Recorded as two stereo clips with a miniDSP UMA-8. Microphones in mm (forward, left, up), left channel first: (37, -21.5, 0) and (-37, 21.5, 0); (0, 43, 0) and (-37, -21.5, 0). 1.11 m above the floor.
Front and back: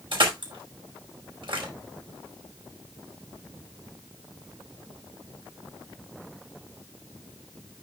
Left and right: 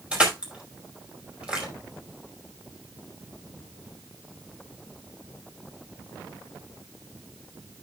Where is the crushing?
165° left, 5 m.